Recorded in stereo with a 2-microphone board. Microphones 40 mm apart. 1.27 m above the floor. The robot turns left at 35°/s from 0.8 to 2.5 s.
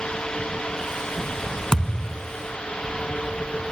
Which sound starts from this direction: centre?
A thud, at 1.7 s.